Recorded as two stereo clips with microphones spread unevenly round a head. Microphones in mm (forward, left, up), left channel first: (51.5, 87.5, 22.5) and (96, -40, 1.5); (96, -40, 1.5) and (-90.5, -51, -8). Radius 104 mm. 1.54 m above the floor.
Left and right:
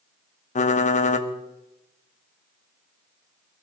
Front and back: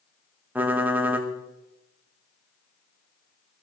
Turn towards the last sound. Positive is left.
turn(degrees=100)